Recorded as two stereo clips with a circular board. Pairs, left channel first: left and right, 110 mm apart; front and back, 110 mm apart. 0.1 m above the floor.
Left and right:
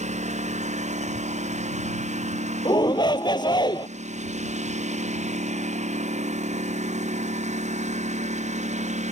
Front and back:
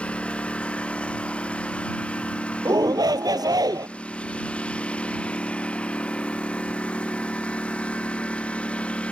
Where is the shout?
130° left.